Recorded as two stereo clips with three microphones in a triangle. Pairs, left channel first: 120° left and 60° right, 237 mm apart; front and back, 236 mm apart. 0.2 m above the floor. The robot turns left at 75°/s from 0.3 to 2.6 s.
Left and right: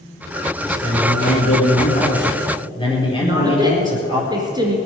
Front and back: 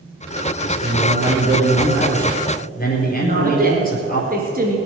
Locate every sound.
0.6 s a man speaking: 160° right, 4 m; by 4.2 s 50° left, 4 m
3.2 s a woman speaking: 130° right, 2.5 m